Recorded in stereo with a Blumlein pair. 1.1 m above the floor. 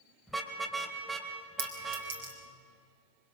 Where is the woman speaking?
I don't hear a woman speaking.